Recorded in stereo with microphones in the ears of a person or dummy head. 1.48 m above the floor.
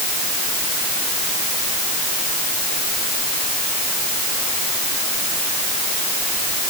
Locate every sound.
Only background noise.